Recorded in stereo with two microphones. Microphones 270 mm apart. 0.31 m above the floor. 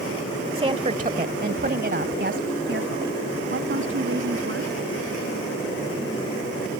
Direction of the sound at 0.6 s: 20° right (ahead or behind).